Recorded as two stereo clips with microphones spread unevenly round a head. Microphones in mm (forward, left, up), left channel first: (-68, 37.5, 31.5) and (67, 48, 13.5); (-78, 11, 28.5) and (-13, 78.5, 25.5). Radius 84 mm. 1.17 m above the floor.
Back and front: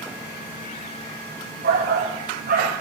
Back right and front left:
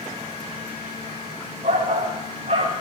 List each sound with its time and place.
1.6 s a shout: 10° left, 8 m